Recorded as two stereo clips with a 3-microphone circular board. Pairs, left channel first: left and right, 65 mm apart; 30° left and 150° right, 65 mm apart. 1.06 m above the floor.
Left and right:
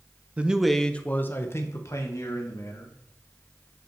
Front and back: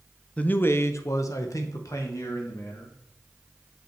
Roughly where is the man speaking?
Ahead right.